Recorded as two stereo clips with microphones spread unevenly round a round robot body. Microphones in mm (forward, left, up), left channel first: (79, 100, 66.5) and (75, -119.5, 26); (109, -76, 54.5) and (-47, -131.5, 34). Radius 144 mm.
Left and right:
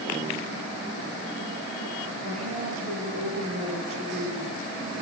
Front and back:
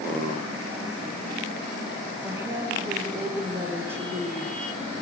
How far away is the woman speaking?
About 9.5 m.